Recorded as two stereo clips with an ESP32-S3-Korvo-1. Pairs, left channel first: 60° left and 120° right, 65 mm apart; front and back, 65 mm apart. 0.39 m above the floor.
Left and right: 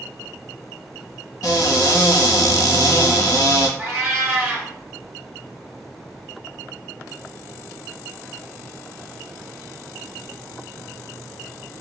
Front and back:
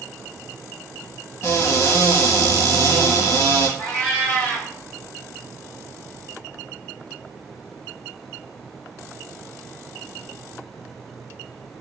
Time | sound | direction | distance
1.4 | a cupboard door | 40° left | 0.6 m
3.8 | a cat meowing | 65° right | 1.3 m